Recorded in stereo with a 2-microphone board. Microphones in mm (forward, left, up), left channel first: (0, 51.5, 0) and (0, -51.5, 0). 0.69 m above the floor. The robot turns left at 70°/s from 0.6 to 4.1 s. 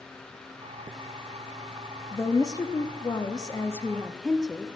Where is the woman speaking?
150° left, 0.6 m; by 4.7 s 10° left, 0.6 m.